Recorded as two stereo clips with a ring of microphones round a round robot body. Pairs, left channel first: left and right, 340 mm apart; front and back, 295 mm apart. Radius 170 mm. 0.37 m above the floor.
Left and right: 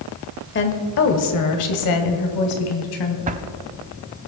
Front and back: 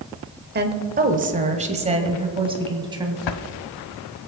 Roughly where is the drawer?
Ahead.